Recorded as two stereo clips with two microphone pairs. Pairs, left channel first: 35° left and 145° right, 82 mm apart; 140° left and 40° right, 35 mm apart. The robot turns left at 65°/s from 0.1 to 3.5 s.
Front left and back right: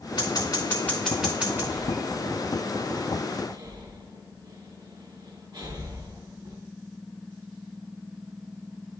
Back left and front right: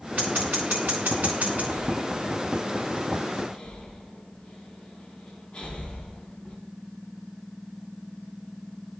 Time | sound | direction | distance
0.2 | scissors | 10° left | 1.8 m
1.7 | breathing | 55° right | 2 m